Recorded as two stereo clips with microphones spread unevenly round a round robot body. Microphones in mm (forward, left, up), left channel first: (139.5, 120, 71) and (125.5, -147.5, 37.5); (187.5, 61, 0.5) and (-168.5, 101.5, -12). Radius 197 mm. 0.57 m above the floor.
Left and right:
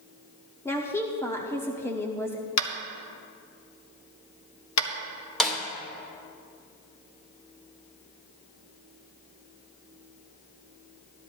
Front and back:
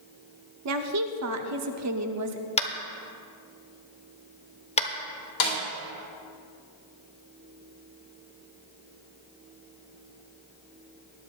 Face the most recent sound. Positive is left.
turn(degrees=-5)